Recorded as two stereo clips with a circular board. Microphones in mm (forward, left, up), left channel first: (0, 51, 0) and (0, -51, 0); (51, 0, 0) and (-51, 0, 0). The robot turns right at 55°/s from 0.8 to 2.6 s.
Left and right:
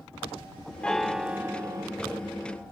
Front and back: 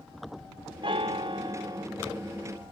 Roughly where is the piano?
Behind.